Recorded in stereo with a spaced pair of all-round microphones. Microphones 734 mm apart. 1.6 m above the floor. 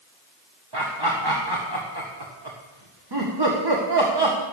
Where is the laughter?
35° right (ahead or behind), 2 m.